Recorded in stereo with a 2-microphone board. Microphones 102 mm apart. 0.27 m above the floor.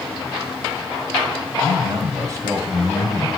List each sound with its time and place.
1.6 s a man speaking: 45° right (ahead or behind), 2 m; by 3.3 s 20° right (ahead or behind), 1.9 m